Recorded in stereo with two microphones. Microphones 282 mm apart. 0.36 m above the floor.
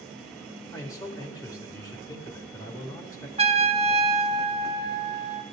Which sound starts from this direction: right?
A trumpet, at 3.4 s.